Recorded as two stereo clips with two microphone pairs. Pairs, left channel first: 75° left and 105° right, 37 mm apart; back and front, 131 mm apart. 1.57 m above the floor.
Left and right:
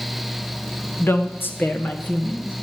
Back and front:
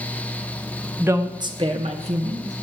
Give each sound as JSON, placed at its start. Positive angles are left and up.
{"t": 1.0, "sound": "a woman speaking", "azimuth_deg": 75, "distance_m": 1.2}